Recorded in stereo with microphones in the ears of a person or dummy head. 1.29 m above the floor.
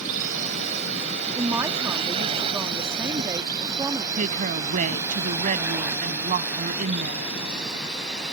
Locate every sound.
0.0 s a drone: 40° right (ahead or behind); by 8.3 s centre (ahead or behind)
1.4 s a man speaking: 20° right (ahead or behind)
4.2 s a woman speaking: 45° right (ahead or behind)